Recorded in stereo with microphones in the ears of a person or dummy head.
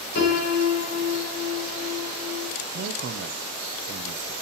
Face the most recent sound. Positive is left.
turn(degrees=-60)  # may be behind; listen again after turning